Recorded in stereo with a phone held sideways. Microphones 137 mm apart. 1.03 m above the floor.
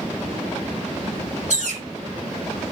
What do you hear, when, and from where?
1.5 s a bird: 65° right (ahead or behind), 0.7 m